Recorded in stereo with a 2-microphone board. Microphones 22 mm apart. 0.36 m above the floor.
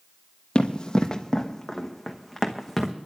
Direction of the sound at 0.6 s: 45° left (ahead or behind).